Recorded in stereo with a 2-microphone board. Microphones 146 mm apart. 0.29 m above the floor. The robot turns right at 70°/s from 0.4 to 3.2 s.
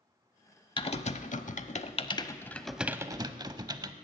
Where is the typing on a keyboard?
35° left (ahead or behind), 0.6 m; by 3.9 s 30° right (ahead or behind), 0.6 m.